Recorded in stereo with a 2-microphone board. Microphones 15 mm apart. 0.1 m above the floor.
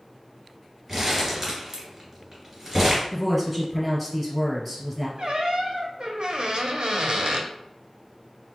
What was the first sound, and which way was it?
Crumpling, 15° right (ahead or behind).